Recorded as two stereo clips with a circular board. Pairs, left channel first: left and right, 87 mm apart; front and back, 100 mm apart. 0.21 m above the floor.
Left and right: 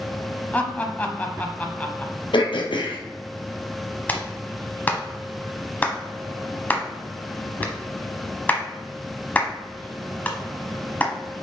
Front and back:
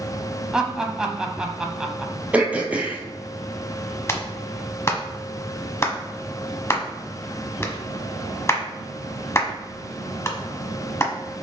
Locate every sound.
0.5 s laughter: 110° left, 1.0 m
2.3 s throat clearing: 105° left, 1.2 m
4.1 s a clap: 40° left, 1.1 m